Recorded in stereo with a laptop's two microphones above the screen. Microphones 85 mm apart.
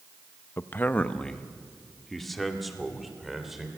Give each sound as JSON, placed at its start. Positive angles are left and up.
{"t": 0.6, "sound": "a man speaking", "side_deg": 30, "distance_m": 0.7}